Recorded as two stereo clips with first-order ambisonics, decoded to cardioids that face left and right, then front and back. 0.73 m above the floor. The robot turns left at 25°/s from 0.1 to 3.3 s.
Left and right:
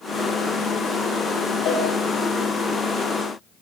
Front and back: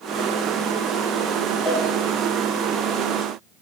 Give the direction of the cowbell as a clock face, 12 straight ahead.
10 o'clock.